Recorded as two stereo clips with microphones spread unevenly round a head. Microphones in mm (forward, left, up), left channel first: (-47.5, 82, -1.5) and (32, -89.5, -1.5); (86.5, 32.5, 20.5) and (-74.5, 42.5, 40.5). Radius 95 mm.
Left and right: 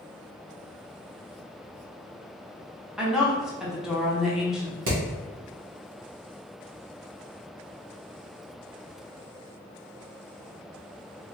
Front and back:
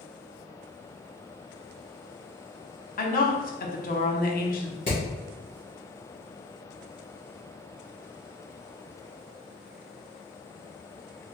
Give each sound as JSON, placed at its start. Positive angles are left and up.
{"t": 3.0, "sound": "a woman speaking", "azimuth_deg": 20, "distance_m": 0.9}
{"t": 4.9, "sound": "hammering", "azimuth_deg": -65, "distance_m": 1.9}